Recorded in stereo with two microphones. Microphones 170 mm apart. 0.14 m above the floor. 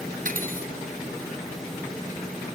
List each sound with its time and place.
0.2 s cutlery clinking: 55° right (ahead or behind)